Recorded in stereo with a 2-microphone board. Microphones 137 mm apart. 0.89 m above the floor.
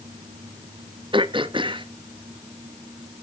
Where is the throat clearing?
40° right (ahead or behind), 0.8 m.